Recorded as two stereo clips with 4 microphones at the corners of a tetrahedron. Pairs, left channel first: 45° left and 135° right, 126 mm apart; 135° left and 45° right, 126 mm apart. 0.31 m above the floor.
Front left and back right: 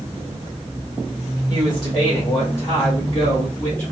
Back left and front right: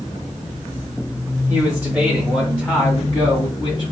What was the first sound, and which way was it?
A man speaking, 15° left.